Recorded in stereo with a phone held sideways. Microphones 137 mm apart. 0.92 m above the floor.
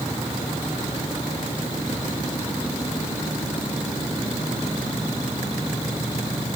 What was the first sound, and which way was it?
Only background noise.